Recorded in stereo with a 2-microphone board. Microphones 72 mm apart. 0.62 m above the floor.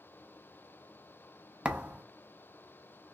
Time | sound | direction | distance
1.6 | a thud | 15° right (ahead or behind) | 0.5 m